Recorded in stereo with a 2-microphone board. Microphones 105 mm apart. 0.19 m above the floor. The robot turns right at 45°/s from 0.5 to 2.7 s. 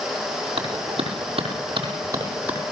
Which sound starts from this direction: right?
A clap, at 0.6 s.